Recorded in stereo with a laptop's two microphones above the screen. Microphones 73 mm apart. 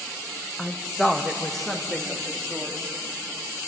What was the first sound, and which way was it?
A woman speaking, 5° left (ahead or behind).